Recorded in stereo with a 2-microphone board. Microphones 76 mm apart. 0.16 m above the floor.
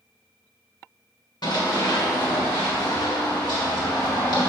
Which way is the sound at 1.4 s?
80° left.